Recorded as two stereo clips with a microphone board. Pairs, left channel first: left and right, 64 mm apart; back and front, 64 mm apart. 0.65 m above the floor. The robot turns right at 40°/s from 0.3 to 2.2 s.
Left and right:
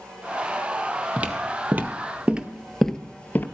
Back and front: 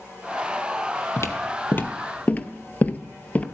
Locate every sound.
1.2 s footsteps: 155° right, 1.1 m; by 3.5 s 125° left, 0.7 m